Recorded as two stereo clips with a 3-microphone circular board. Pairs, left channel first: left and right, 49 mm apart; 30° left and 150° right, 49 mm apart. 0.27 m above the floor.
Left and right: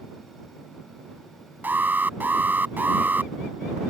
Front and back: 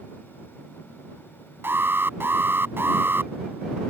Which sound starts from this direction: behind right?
An alarm, at 1.6 s.